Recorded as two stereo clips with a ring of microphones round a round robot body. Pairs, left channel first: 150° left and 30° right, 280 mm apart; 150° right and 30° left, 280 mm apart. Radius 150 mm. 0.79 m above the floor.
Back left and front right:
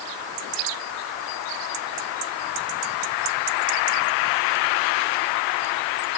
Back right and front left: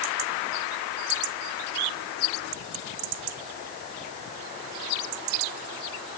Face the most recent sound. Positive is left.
No sound to turn to.